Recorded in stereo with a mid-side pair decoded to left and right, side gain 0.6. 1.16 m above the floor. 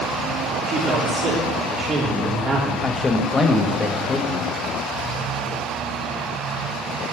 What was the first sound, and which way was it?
A man speaking, 45° right.